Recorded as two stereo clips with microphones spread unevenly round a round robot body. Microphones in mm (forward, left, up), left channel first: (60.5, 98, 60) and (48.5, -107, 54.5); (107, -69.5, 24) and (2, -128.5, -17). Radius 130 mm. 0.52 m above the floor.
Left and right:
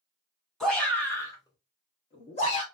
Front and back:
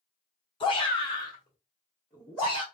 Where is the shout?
Straight ahead, 1.2 m; by 2.6 s 135° left, 1.5 m.